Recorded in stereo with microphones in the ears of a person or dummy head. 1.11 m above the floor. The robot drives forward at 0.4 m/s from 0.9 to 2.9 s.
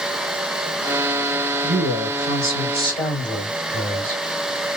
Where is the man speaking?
10° left (ahead or behind), 3 m.